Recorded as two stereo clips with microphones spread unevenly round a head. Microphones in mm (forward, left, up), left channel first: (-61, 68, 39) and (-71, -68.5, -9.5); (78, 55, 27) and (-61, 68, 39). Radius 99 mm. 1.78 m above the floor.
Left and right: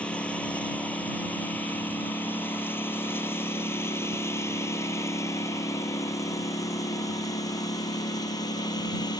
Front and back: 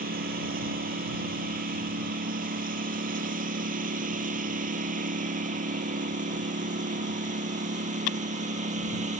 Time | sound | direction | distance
0.0 | a lawn mower | 165° left | ?